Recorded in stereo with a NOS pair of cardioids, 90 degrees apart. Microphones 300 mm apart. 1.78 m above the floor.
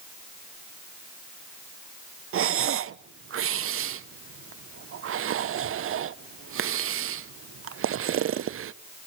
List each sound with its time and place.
2.3 s breathing: 50° right, 0.8 m